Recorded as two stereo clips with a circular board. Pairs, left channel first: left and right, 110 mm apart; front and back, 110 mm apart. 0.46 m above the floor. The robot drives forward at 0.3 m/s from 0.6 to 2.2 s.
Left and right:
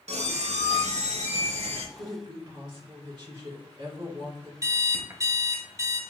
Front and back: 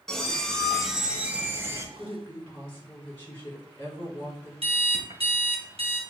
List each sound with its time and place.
0.1 s a squeak: 85° right, 0.7 m; by 1.9 s 115° right, 0.8 m
2.0 s a woman speaking: 60° right, 2 m; by 4.5 s 65° right, 2.0 m
4.6 s an alarm clock: 150° right, 0.8 m